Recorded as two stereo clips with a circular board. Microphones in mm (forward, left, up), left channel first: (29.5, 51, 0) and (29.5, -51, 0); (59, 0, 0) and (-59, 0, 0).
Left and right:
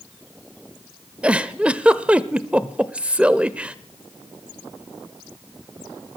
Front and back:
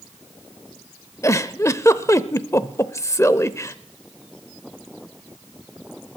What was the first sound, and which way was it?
A giggle, 25° right.